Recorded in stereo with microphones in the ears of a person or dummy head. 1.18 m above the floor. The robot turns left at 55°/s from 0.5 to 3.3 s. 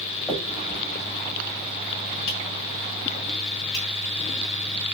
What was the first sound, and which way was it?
A finger snap, 10° left (ahead or behind).